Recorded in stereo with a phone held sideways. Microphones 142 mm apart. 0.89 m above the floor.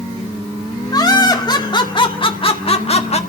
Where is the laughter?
30° left (ahead or behind), 2.5 m; by 3.2 s 50° left (ahead or behind), 1.4 m.